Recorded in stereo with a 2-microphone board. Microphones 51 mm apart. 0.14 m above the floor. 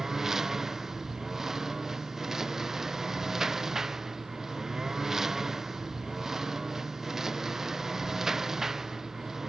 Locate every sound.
0.0 s a lawn mower: 10° right (ahead or behind)